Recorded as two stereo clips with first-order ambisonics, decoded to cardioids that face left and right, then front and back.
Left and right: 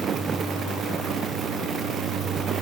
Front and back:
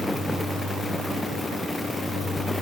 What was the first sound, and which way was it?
Only background noise.